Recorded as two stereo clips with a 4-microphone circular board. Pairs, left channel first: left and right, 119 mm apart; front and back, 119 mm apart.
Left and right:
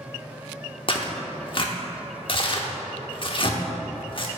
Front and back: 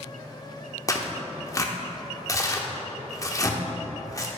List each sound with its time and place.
0.9 s tearing paper: 55° left, 0.9 m